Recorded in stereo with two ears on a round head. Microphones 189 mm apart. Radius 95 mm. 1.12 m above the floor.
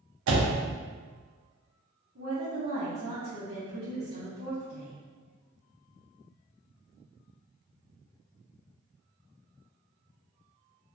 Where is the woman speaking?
60° right (ahead or behind), 0.8 m.